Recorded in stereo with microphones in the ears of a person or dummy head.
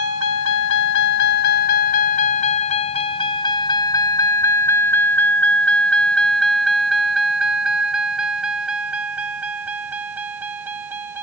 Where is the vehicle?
85° left; by 11.2 s 10° right (ahead or behind).